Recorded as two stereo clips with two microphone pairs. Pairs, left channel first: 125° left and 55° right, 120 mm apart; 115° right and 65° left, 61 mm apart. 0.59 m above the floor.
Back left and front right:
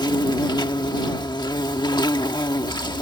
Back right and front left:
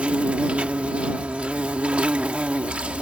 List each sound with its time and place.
0.0 s an insect: 120° left